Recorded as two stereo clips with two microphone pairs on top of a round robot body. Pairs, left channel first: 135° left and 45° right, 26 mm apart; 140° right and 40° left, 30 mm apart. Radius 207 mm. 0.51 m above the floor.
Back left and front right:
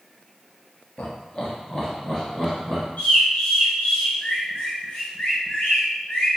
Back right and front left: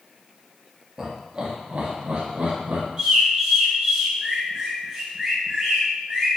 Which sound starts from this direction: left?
A bird, at 3.0 s.